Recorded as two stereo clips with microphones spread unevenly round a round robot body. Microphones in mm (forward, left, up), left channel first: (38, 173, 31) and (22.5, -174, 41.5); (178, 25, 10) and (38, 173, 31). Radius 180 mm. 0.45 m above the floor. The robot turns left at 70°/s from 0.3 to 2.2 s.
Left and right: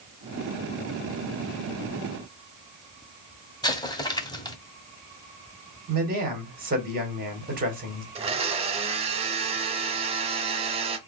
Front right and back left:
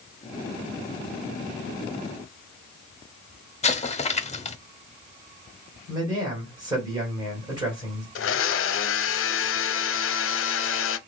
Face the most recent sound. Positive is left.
turn(degrees=-20)